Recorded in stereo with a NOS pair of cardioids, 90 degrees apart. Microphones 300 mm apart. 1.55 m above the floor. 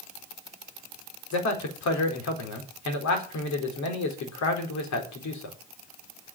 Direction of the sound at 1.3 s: 65° left.